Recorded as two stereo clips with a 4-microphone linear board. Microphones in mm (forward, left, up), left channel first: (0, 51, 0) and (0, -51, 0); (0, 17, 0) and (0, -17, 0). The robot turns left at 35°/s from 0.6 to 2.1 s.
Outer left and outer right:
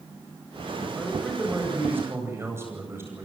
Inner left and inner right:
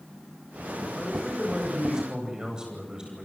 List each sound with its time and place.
1.0 s a man speaking: 15° left, 9 m; by 3.2 s 25° right, 9 m